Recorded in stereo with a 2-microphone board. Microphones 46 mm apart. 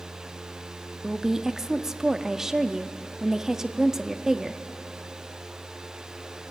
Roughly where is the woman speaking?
Centre.